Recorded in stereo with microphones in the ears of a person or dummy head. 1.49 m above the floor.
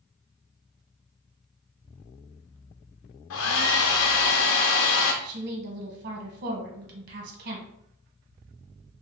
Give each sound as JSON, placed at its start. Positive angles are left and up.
{"t": 3.3, "sound": "a hair dryer", "side_deg": 75, "distance_m": 0.7}
{"t": 5.2, "sound": "a woman speaking", "side_deg": -60, "distance_m": 1.4}